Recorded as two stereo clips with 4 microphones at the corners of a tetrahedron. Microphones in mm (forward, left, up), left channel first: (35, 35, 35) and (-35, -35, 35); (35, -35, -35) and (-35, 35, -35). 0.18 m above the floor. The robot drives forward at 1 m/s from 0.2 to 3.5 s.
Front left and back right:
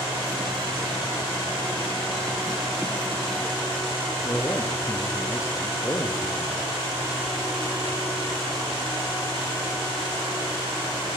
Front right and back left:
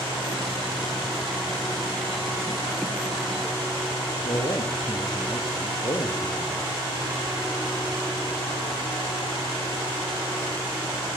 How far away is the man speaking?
About 3.5 m.